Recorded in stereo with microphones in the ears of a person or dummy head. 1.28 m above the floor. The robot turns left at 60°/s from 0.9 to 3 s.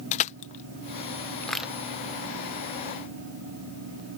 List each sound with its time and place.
0.1 s crushing: 50° left (ahead or behind); by 1.7 s 5° left (ahead or behind)